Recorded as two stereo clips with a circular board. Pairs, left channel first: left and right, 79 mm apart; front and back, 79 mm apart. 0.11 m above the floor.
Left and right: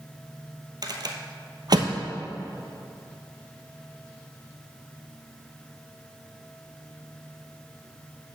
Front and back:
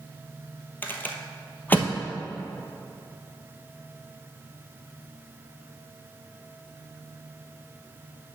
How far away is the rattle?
About 0.9 m.